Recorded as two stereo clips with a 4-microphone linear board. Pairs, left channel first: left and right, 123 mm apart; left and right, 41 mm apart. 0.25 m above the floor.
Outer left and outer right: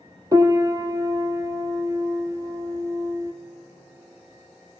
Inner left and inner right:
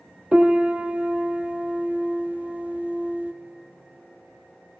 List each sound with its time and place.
0.3 s a piano: 30° right (ahead or behind), 1.4 m